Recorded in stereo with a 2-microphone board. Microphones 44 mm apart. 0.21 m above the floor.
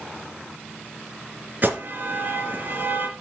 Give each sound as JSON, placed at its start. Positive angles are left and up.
{"t": 1.6, "sound": "an alarm", "side_deg": -45, "distance_m": 2.5}